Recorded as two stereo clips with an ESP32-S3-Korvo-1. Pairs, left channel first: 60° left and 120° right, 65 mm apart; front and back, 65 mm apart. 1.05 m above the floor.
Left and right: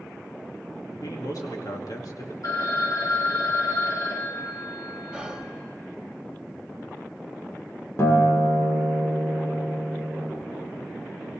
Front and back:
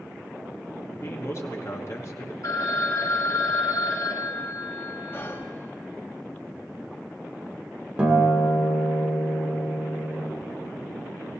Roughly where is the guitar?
Left.